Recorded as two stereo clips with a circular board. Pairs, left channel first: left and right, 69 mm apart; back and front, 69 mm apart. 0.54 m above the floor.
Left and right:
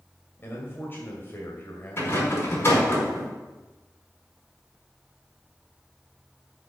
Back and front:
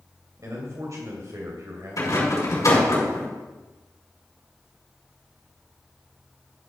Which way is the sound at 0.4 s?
35° left.